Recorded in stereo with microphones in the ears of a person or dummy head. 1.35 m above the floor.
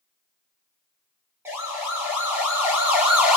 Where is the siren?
15° right (ahead or behind), 6 m; by 3.4 s 10° right (ahead or behind), 4 m.